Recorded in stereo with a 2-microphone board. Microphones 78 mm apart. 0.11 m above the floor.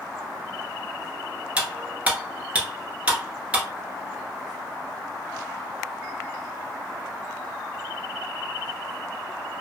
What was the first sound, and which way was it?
Cutlery clinking, 15° right (ahead or behind).